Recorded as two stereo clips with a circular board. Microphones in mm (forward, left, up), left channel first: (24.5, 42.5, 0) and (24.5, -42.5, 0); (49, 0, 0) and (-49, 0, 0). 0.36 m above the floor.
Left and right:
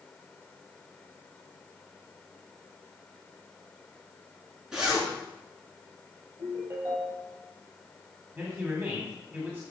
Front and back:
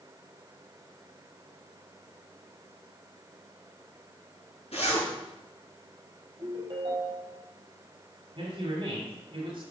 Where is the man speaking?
155° right, 2.0 m.